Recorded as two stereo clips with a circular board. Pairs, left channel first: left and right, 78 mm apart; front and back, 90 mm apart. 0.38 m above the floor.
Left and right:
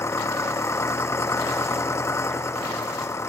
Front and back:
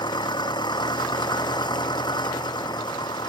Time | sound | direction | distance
0.0 | an engine running | 35° left | ?